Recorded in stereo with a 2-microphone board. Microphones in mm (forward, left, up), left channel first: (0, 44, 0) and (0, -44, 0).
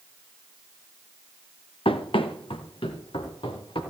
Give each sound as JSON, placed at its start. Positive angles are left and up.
{"t": 1.9, "sound": "running footsteps", "side_deg": 90, "distance_m": 1.9}